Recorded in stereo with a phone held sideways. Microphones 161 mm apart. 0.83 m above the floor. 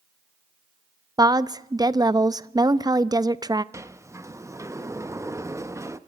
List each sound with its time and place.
1.2 s a woman speaking: 25° right (ahead or behind), 0.6 m
3.7 s a sliding door: 20° right (ahead or behind), 0.8 m